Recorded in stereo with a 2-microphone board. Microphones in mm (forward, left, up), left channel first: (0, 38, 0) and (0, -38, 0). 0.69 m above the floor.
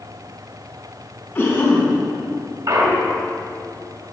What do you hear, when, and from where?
1.4 s a cough: 20° left (ahead or behind), 4 m
2.7 s a clunk: 55° right (ahead or behind), 1.8 m